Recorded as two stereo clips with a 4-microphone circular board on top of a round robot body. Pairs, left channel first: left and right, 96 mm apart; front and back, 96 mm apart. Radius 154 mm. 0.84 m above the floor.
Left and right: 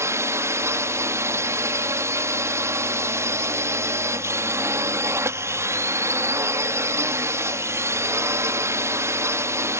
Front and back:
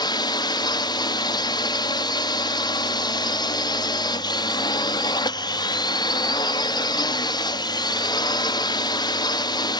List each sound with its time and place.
0.0 s a drone: 35° right